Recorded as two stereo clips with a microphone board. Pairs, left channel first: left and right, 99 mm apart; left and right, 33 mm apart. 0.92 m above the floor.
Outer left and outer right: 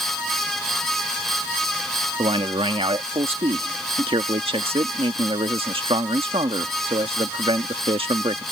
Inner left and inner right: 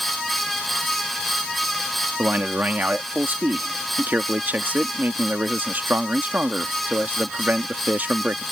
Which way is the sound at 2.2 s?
70° right (ahead or behind).